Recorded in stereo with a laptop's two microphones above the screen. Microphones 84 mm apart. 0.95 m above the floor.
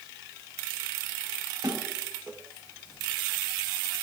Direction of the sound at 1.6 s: 80° right.